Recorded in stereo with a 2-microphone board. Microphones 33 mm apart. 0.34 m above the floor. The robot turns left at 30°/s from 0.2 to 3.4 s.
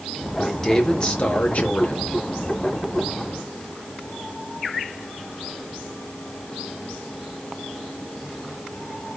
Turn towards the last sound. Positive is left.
turn(degrees=80)